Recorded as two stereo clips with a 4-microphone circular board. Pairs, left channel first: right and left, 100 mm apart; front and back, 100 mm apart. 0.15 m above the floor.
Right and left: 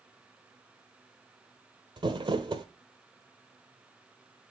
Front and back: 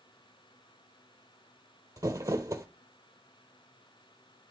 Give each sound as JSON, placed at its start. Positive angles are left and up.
{"t": 2.0, "sound": "crumpling", "azimuth_deg": 125, "distance_m": 0.9}